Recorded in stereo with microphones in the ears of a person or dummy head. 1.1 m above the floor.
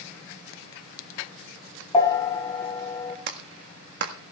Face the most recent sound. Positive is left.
turn(degrees=-65)  # may be behind; listen again after turning